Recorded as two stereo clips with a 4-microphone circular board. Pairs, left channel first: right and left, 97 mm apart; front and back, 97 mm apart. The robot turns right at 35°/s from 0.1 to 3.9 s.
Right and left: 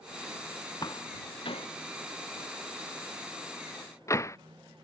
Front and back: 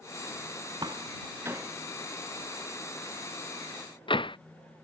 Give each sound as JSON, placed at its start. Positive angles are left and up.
{"t": 0.8, "sound": "a door slam", "azimuth_deg": -140}